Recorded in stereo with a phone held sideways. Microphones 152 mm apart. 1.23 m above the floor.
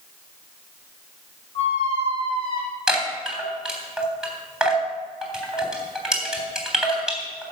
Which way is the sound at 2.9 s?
5° right (ahead or behind).